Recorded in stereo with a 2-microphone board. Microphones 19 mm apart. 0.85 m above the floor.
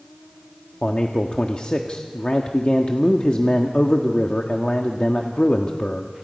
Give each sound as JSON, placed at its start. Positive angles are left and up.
{"t": 0.8, "sound": "a man speaking", "side_deg": 60, "distance_m": 1.4}